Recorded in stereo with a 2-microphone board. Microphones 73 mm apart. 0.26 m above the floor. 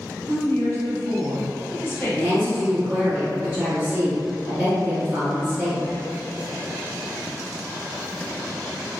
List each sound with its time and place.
0.3 s a woman speaking: 30° left (ahead or behind), 1.1 m
2.1 s a woman speaking: 20° right (ahead or behind), 1.3 m